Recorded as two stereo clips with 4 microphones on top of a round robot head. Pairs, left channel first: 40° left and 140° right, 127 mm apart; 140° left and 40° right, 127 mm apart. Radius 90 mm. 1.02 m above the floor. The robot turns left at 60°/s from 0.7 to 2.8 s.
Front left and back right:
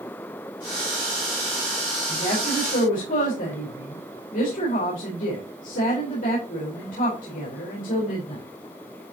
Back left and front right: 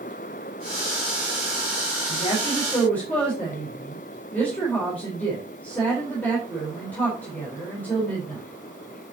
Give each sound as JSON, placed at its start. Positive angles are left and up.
{"t": 2.1, "sound": "a woman speaking", "azimuth_deg": 105, "distance_m": 4.5}